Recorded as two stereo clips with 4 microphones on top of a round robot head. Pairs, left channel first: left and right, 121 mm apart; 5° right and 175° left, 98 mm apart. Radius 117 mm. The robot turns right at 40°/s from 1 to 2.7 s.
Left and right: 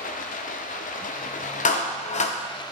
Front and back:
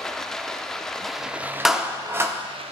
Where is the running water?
80° left, 0.7 m; by 2.7 s 150° left, 0.7 m.